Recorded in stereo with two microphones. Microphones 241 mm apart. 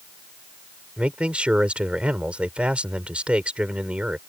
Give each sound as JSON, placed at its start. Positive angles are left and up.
{"t": 1.0, "sound": "a man speaking", "side_deg": -5}